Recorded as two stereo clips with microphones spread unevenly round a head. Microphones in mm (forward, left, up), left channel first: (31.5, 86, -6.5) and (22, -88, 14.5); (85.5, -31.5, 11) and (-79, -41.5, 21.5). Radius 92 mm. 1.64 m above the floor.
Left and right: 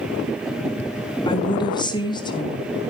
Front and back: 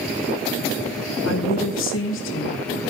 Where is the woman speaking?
20° left, 3 m.